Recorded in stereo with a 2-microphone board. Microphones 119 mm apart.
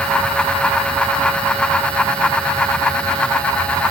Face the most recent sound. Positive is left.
No sound to turn to.